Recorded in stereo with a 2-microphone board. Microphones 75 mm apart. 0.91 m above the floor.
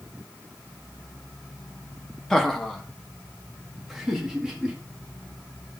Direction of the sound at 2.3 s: 5° left (ahead or behind).